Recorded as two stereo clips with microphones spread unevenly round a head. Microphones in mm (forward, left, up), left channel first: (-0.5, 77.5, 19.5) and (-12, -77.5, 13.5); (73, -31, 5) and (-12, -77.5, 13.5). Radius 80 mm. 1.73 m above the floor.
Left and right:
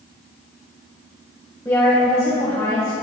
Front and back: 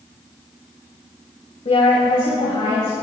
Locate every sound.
1.6 s a woman speaking: 10° left, 2 m; by 2.9 s 20° left, 3 m